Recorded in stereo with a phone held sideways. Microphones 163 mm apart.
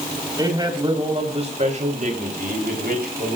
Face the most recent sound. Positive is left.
turn(degrees=-80)